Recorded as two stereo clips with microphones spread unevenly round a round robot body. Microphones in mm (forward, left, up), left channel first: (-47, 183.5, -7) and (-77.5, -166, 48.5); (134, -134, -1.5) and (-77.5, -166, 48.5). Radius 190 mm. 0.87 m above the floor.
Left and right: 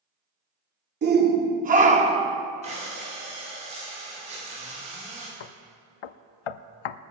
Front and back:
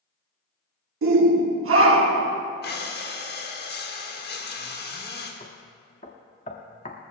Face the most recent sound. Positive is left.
turn(degrees=80)